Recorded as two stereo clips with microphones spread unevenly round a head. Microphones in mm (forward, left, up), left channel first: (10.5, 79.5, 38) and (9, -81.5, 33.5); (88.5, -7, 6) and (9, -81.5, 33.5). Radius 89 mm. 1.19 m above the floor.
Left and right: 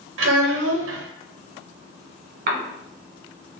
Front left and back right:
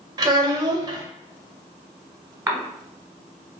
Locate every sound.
0.2 s a child speaking: 85° right, 0.6 m
2.5 s a cough: 60° right, 1.0 m